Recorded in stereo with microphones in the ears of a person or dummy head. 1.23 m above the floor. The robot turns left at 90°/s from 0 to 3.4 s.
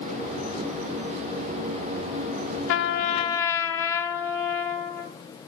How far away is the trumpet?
About 0.7 m.